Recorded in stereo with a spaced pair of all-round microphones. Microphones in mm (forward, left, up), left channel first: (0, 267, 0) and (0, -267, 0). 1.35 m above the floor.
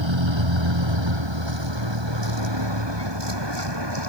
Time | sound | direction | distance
0.0 | a vehicle | 55° right (ahead or behind) | ?